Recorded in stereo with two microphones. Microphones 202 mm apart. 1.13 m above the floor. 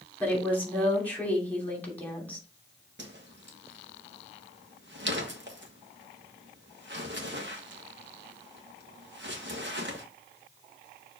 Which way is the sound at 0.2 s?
10° left (ahead or behind).